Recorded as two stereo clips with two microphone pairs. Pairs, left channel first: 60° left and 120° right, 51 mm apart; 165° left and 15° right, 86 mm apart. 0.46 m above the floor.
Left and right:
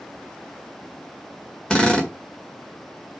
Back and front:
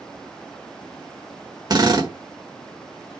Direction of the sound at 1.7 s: 5° right.